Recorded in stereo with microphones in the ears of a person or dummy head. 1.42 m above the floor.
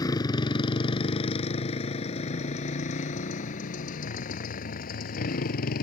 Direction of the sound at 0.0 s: 20° left (ahead or behind).